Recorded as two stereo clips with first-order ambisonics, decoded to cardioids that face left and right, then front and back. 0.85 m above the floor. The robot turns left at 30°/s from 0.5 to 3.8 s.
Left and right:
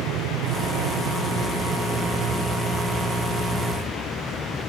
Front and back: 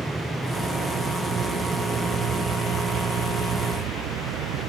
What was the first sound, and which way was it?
An aircraft, 95° right.